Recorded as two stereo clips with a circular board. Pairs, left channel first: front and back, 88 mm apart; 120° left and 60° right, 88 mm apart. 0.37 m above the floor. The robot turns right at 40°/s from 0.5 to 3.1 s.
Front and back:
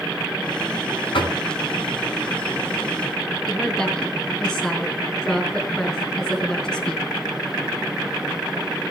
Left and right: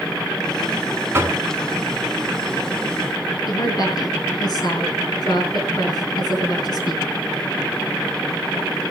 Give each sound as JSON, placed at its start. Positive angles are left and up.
{"t": 1.1, "sound": "knocking", "azimuth_deg": 0, "distance_m": 3.5}
{"t": 3.5, "sound": "a woman speaking", "azimuth_deg": 85, "distance_m": 4.0}